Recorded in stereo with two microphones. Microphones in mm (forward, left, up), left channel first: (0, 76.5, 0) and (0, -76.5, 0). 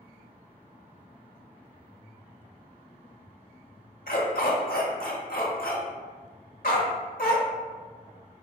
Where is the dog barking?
65° left (ahead or behind), 0.9 m.